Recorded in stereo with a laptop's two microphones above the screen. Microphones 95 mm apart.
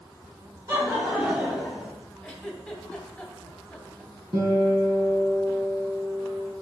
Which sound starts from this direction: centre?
A giggle, at 2.2 s.